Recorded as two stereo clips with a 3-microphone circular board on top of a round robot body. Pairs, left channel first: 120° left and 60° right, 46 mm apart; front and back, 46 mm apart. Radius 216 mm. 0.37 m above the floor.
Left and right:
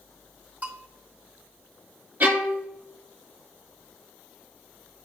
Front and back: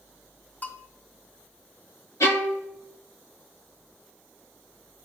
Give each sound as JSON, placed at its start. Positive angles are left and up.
{"t": 0.6, "sound": "a bell", "azimuth_deg": -20, "distance_m": 1.7}
{"t": 2.2, "sound": "a violin", "azimuth_deg": -10, "distance_m": 1.3}